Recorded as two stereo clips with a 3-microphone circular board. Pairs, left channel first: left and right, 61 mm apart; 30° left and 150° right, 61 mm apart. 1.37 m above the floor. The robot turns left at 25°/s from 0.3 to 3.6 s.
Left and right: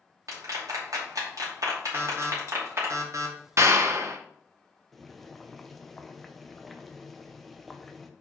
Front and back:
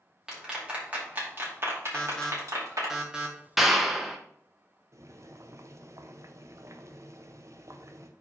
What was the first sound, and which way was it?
A clap, 70° right.